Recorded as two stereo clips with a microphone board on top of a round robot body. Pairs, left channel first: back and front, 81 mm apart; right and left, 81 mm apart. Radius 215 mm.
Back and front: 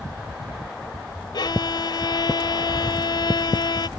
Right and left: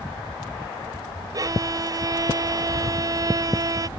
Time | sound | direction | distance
1.3 | a violin | 140° left | ?